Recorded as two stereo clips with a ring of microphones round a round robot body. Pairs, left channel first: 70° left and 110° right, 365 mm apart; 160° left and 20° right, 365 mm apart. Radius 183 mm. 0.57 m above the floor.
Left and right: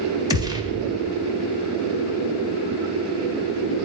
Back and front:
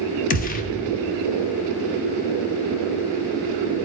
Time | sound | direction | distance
0.3 | a gunshot | 175° right | 0.9 m